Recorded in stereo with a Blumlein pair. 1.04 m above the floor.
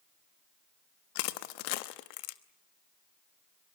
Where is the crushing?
45° left, 0.9 m.